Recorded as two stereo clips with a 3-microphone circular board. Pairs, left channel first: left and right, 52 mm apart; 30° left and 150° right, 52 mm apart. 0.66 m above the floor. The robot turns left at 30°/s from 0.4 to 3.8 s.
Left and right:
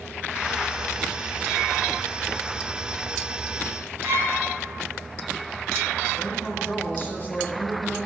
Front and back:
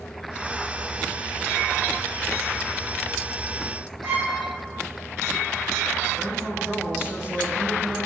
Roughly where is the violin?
Behind right.